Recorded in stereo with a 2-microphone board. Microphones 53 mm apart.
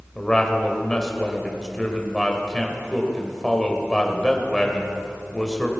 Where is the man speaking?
10° left (ahead or behind), 1.9 m.